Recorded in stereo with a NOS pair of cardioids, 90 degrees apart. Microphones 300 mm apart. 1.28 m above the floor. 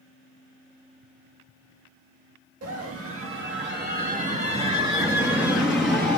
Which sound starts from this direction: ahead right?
A scream, at 2.6 s.